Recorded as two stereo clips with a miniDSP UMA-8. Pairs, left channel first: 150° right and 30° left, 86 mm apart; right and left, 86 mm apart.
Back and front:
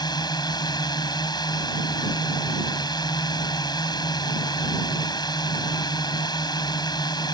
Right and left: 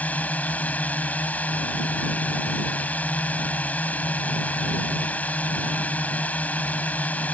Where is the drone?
160° right.